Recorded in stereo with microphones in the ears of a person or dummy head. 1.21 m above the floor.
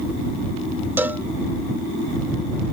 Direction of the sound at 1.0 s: 15° right (ahead or behind).